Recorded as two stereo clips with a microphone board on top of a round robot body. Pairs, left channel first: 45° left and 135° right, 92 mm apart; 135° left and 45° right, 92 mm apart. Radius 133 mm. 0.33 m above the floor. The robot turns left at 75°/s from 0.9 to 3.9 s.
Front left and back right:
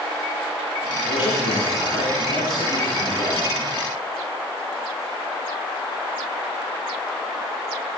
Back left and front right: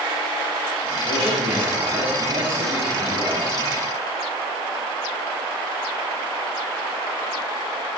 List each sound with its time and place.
1.1 s a man speaking: 65° left, 9.5 m; by 3.5 s 115° right, 9.5 m